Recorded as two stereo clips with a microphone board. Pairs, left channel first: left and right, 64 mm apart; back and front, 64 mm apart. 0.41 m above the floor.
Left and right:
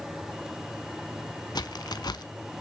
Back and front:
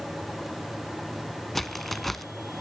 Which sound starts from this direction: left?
A crack, at 1.6 s.